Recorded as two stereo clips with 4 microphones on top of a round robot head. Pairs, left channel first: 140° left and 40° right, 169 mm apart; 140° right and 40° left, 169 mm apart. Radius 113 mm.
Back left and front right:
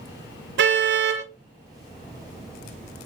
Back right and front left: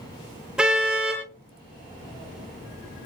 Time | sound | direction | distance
0.6 | a car horn | 45° right | 6 m